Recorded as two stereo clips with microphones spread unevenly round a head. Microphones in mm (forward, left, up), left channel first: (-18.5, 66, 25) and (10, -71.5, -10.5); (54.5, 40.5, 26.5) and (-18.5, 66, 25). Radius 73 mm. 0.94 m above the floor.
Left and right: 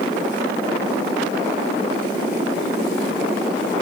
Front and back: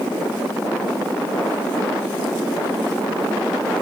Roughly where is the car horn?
No car horn in this recording.